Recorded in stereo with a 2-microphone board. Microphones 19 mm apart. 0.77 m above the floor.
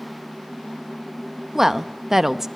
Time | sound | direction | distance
1.6 | a woman speaking | 20° right (ahead or behind) | 0.6 m